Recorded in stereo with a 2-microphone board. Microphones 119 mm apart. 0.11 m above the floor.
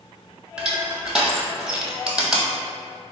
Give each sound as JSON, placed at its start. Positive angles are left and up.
{"t": 0.6, "sound": "crushing", "side_deg": -10, "distance_m": 0.7}